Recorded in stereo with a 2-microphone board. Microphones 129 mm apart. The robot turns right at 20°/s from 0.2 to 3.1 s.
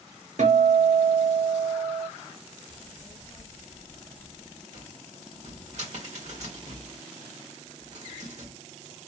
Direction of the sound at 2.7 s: 50° left (ahead or behind).